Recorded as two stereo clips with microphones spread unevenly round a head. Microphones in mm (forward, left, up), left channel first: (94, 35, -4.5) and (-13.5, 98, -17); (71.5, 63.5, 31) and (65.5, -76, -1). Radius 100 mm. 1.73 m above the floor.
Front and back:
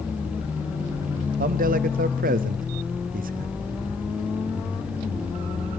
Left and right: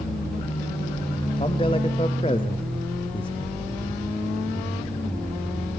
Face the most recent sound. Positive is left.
turn(degrees=155)